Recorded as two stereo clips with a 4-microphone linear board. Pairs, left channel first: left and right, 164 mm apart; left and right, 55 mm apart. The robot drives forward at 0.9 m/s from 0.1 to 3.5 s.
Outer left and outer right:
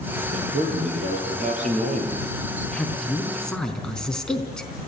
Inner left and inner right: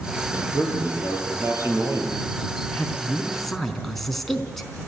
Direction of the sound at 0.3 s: 45° right (ahead or behind).